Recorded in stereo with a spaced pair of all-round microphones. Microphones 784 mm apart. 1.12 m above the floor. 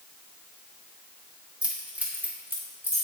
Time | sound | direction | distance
1.6 | keys jangling | centre (ahead or behind) | 1.5 m